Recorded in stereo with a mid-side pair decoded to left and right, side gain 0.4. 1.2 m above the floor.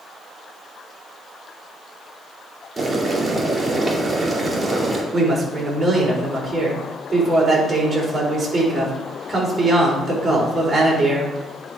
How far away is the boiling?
About 2.5 m.